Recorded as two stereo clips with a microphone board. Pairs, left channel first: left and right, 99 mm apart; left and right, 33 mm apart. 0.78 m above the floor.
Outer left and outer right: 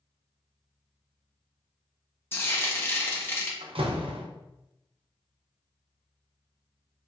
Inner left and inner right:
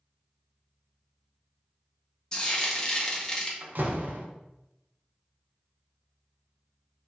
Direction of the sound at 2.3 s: 25° left (ahead or behind).